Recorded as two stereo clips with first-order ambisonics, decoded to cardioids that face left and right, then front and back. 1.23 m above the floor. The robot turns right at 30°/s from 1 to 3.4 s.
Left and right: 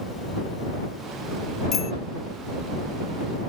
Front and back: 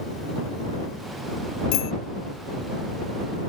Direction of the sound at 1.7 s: 25° left.